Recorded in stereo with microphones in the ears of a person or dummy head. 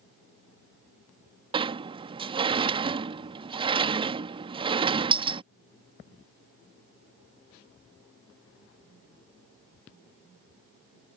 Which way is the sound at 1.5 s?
20° right (ahead or behind).